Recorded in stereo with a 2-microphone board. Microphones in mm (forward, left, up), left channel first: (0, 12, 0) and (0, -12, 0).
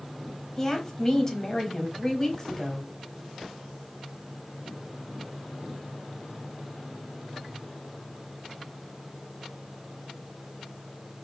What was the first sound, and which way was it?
A woman speaking, 20° left (ahead or behind).